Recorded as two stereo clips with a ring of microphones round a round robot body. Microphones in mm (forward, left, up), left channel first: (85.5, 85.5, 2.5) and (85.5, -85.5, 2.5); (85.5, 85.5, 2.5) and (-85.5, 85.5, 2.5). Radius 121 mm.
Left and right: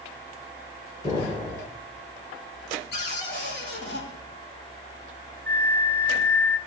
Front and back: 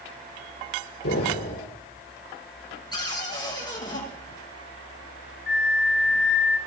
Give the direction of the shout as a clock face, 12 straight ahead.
I don't hear a shout.